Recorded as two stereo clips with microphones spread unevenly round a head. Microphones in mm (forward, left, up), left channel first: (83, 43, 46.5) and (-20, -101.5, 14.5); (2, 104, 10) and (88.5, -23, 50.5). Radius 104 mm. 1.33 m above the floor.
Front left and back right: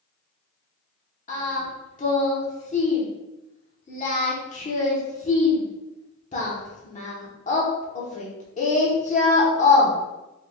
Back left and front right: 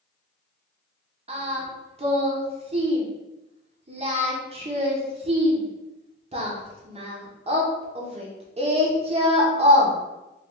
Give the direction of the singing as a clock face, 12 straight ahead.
12 o'clock.